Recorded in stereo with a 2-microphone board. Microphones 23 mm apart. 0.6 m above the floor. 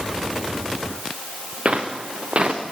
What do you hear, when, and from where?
1.6 s footsteps: 45° right (ahead or behind), 3 m